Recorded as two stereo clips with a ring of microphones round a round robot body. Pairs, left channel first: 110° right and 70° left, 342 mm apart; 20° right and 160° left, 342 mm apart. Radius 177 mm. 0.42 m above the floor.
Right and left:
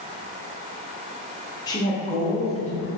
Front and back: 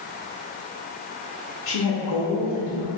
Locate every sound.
1.7 s a woman speaking: 40° right, 0.9 m; by 2.9 s 45° right, 1.9 m